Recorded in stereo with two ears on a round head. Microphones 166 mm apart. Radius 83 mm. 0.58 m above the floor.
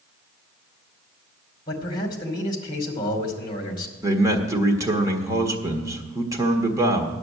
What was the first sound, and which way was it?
A man speaking, 25° left (ahead or behind).